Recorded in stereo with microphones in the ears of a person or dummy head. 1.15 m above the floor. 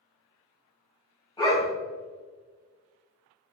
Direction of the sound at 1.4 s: 20° left (ahead or behind).